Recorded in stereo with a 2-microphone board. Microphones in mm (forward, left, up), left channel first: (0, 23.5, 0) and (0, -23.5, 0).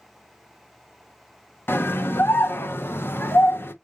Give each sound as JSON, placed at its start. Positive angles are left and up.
{"t": 1.7, "sound": "a scream", "side_deg": 55, "distance_m": 0.8}